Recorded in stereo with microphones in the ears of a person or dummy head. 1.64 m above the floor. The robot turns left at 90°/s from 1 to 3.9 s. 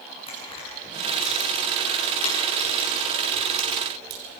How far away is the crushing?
About 7.5 m.